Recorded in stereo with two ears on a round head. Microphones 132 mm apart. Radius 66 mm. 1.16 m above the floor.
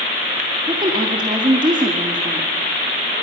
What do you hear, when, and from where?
0.7 s a woman speaking: 30° right (ahead or behind), 2.0 m